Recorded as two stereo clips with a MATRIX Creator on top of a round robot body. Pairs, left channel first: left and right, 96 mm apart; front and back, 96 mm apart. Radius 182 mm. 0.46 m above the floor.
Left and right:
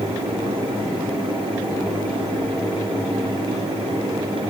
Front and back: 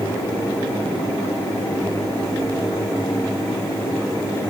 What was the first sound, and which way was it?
Only background noise.